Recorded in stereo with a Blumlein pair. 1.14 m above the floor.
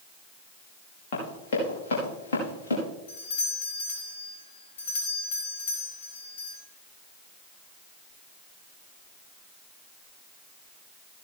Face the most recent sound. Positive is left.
turn(degrees=65)